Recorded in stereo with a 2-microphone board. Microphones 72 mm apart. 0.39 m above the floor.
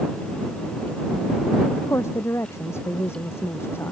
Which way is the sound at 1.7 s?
35° left (ahead or behind).